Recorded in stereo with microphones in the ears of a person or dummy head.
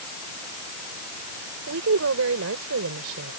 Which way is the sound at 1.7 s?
75° right (ahead or behind).